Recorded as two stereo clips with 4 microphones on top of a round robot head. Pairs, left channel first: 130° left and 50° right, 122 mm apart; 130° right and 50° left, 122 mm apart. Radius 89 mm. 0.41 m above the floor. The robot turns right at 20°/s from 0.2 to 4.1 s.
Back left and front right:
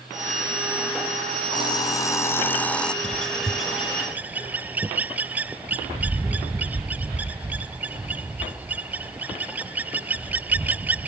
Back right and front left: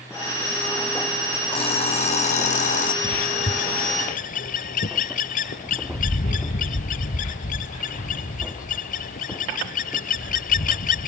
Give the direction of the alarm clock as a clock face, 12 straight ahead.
6 o'clock.